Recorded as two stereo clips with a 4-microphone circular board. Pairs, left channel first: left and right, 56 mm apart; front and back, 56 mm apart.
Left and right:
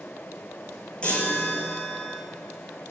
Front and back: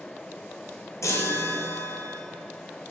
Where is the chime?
20° left, 2.5 m.